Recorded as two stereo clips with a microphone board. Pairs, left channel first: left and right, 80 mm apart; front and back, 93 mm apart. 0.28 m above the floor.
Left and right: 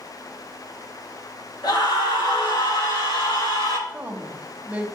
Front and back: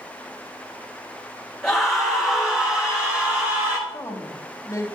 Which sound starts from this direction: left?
A scream, at 1.6 s.